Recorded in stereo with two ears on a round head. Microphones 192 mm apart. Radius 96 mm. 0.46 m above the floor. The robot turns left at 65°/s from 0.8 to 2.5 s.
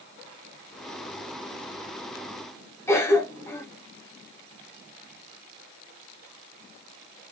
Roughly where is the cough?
Centre.